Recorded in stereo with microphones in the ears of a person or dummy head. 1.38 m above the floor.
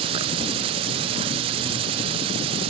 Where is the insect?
30° right (ahead or behind), 0.7 m.